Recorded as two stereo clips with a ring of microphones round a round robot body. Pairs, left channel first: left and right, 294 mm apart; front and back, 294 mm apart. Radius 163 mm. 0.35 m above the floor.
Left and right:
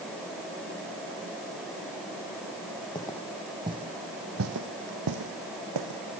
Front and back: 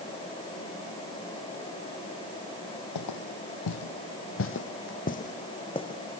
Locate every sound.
3.0 s footsteps: 15° left, 1.0 m; by 6.2 s 75° right, 1.7 m